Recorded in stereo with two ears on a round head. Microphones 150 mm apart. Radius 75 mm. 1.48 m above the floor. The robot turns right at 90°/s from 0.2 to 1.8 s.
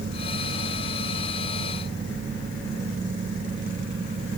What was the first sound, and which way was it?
Only background noise.